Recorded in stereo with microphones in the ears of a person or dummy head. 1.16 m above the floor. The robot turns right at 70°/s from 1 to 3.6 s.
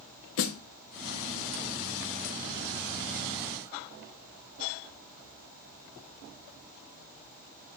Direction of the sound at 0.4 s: 60° left (ahead or behind).